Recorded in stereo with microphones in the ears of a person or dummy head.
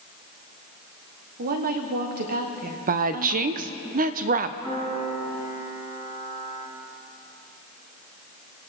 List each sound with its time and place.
1.4 s a woman speaking: 50° right (ahead or behind), 1.2 m
2.9 s a woman speaking: 35° right (ahead or behind), 0.5 m
4.6 s a piano: 30° right (ahead or behind), 4 m